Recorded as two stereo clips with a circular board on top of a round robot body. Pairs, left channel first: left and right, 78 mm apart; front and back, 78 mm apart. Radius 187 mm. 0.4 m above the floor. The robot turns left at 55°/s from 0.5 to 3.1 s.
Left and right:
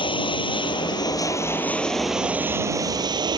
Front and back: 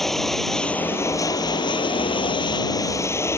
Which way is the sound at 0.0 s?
85° left.